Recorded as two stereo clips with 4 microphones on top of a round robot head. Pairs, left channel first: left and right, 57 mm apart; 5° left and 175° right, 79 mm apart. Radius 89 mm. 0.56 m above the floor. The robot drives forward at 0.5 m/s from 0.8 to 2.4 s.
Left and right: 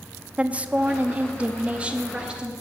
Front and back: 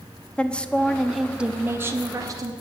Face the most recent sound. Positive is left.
turn(degrees=-160)